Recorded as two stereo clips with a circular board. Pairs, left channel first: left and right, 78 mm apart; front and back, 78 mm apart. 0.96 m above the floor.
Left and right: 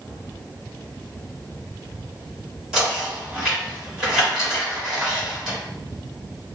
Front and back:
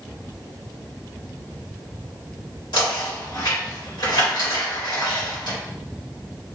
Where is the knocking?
10° right, 2 m.